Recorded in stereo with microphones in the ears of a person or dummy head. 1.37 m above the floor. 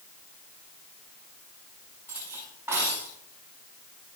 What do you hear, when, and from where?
2.1 s cutlery clinking: 15° right (ahead or behind), 6.5 m